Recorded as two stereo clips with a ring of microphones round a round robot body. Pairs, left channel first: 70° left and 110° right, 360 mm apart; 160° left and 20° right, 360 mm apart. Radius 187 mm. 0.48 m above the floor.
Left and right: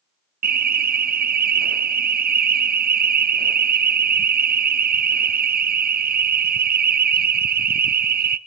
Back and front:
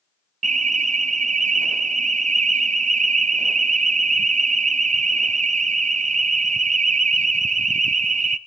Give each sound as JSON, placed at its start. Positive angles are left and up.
{"t": 0.4, "sound": "an alarm", "azimuth_deg": -75, "distance_m": 0.7}